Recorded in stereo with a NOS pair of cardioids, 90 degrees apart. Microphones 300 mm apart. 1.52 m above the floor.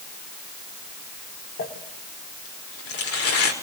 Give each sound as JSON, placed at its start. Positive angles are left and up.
{"t": 1.6, "sound": "crumpling", "azimuth_deg": 50, "distance_m": 5.5}